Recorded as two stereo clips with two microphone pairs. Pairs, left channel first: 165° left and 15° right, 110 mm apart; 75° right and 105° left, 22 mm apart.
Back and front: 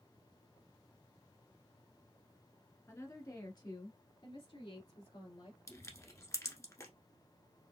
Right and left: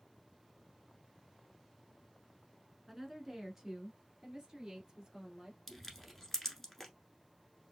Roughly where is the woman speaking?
Behind.